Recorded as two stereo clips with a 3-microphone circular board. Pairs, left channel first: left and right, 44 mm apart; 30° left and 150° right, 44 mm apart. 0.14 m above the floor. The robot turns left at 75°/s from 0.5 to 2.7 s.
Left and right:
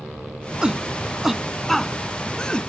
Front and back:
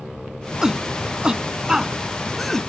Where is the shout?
110° right; by 2.7 s 95° left.